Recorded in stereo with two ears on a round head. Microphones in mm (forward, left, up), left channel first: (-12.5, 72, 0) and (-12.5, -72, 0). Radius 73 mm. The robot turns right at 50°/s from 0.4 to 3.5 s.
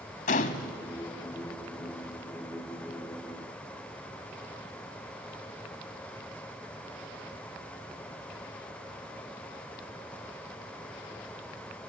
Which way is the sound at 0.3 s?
45° left (ahead or behind).